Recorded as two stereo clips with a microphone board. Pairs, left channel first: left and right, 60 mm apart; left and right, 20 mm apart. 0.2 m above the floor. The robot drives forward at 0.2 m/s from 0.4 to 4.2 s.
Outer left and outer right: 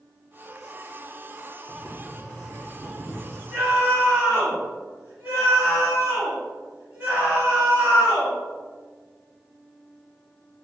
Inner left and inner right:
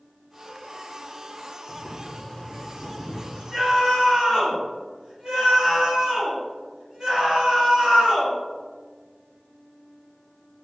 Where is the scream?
25° right (ahead or behind), 1.9 m; by 8.3 s 20° right (ahead or behind), 2 m.